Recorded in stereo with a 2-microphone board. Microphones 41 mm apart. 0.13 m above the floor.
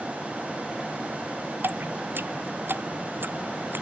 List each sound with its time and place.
1.6 s dripping: 65° right (ahead or behind)